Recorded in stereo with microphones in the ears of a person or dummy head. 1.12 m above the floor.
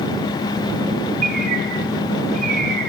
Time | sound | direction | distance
1.2 | a bird | 50° right (ahead or behind) | 1.5 m